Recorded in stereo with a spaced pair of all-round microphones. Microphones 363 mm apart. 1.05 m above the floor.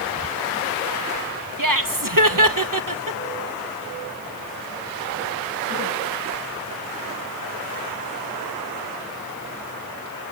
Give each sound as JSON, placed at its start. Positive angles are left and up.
{"t": 1.6, "sound": "laughter", "side_deg": -60, "distance_m": 1.3}